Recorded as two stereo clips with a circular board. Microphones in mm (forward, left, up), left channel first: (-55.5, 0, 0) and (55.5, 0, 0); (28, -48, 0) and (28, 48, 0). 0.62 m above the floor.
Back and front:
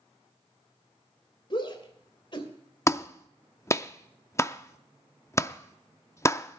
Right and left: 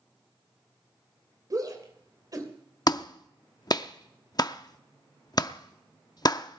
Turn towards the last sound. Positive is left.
turn(degrees=-120)